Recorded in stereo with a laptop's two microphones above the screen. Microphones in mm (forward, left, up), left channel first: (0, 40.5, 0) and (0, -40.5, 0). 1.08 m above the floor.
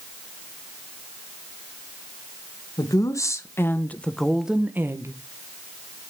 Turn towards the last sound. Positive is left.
turn(degrees=-40)  # may be behind; listen again after turning